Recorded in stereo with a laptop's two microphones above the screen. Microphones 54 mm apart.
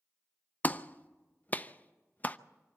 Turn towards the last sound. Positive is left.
turn(degrees=30)  # may be behind; listen again after turning